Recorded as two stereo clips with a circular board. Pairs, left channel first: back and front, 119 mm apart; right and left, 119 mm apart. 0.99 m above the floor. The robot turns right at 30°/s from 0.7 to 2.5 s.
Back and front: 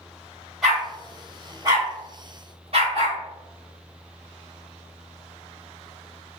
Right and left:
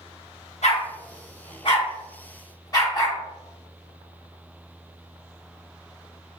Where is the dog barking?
85° right, 1.8 m; by 3.2 s 30° right, 1.8 m.